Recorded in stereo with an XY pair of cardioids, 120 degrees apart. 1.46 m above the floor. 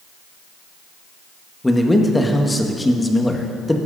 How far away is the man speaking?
About 1.6 m.